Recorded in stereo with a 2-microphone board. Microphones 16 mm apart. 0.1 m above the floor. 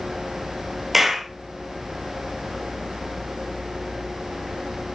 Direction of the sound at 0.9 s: 15° right (ahead or behind).